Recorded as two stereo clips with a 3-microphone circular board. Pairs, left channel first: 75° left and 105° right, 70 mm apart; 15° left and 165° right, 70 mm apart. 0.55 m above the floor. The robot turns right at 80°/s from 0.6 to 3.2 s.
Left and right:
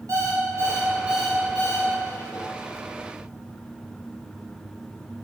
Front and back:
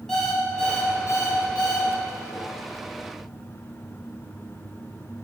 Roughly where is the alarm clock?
Right.